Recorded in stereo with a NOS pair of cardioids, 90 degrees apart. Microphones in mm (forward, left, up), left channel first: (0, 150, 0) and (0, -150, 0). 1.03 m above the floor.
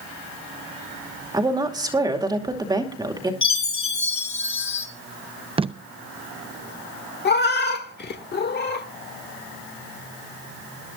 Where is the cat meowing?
35° left, 1.4 m.